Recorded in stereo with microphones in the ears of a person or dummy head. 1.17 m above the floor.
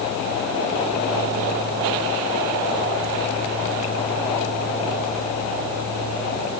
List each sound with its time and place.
Only background noise.